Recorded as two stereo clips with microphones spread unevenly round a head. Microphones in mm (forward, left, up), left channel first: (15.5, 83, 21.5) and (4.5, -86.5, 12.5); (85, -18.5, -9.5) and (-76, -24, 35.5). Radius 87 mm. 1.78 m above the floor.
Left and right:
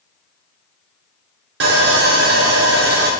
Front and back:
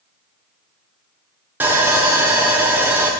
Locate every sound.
1.6 s sawing: 110° right, 0.9 m